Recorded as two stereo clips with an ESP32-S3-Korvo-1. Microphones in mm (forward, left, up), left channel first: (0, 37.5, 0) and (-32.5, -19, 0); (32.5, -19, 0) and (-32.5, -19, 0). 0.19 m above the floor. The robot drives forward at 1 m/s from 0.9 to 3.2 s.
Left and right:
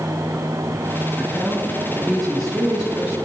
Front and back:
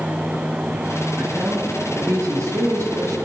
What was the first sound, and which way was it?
A man speaking, 145° left.